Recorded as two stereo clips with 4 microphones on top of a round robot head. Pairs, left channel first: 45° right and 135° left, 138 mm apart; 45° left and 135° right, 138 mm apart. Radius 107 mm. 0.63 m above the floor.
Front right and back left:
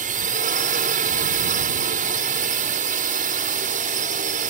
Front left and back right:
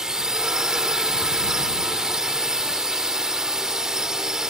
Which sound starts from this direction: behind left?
A drone, at 0.0 s.